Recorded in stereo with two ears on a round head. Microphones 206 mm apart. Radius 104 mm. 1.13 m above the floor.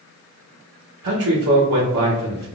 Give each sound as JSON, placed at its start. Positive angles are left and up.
{"t": 1.0, "sound": "a man speaking", "side_deg": -65, "distance_m": 0.8}